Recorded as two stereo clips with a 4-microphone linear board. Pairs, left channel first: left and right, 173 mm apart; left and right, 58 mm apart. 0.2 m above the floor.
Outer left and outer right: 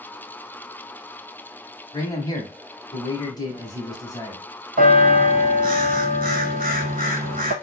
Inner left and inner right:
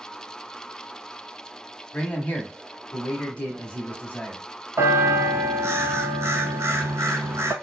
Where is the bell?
60° right (ahead or behind), 0.5 m.